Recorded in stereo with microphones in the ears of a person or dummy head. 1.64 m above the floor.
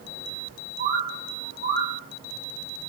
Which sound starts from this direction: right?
A bird, at 0.8 s.